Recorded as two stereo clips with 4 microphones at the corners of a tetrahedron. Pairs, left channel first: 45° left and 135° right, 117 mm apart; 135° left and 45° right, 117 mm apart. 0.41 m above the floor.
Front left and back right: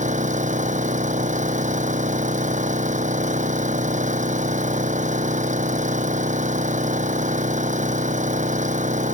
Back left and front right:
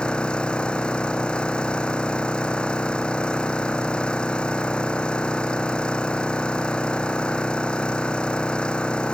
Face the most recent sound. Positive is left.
turn(degrees=-145)